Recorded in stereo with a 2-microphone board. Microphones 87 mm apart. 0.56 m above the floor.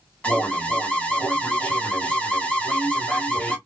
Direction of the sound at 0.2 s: 15° left (ahead or behind).